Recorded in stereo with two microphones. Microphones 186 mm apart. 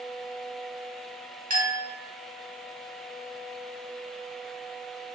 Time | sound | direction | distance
1.5 | a clink | 45° right (ahead or behind) | 1.2 m